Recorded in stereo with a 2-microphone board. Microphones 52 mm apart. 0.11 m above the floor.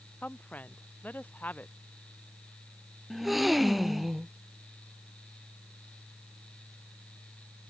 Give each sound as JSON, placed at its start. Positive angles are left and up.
{"t": 0.2, "sound": "a woman speaking", "side_deg": 35}
{"t": 3.1, "sound": "a gasp", "side_deg": -5}